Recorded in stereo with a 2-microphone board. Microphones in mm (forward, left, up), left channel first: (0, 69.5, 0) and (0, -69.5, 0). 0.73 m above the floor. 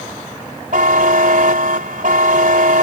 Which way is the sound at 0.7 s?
70° right (ahead or behind).